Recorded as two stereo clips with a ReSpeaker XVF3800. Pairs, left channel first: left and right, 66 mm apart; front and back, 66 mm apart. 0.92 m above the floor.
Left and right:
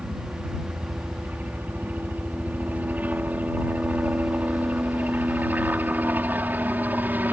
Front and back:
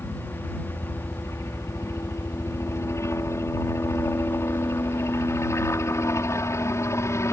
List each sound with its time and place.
0.0 s a helicopter: 30° right; by 7.3 s 35° right